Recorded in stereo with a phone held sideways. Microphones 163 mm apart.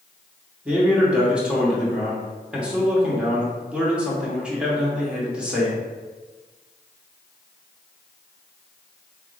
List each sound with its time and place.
0.7 s a man speaking: 5° right (ahead or behind), 1.0 m